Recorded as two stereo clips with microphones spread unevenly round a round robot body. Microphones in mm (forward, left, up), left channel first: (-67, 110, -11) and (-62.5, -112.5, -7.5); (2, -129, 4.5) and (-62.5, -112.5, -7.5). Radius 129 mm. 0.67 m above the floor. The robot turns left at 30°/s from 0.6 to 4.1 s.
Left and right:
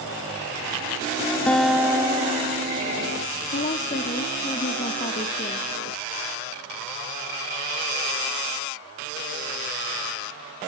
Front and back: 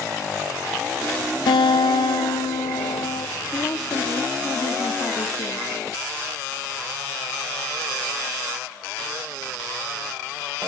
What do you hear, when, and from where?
1.5 s a guitar: 5° left, 0.5 m; by 3.3 s 50° right, 0.5 m
3.5 s a woman speaking: 45° left, 1.3 m; by 5.7 s 30° left, 1.3 m